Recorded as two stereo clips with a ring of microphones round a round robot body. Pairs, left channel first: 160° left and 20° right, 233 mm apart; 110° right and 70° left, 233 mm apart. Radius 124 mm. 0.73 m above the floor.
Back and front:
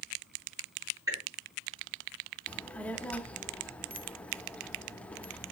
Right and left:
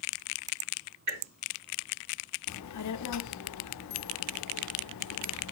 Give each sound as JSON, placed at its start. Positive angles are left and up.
{"t": 1.1, "sound": "dripping", "azimuth_deg": 55, "distance_m": 5.0}
{"t": 2.5, "sound": "a child speaking", "azimuth_deg": -120, "distance_m": 0.6}